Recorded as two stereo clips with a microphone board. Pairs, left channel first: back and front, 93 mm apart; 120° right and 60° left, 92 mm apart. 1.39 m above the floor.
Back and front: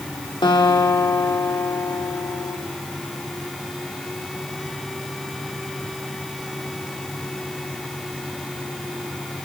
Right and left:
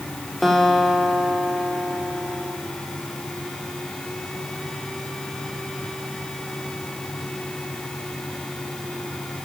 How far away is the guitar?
About 3.5 m.